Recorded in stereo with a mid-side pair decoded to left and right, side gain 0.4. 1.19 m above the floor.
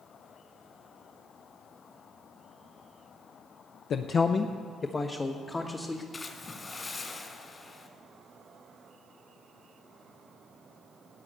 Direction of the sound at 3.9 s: 65° left.